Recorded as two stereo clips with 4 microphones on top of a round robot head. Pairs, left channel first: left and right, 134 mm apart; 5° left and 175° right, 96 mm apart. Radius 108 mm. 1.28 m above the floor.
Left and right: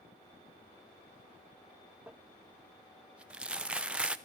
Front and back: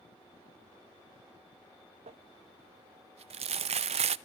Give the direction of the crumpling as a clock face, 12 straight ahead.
6 o'clock.